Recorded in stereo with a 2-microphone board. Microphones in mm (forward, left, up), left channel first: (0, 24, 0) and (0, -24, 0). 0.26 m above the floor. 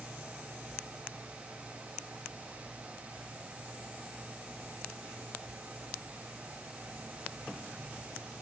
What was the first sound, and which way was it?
Only background noise.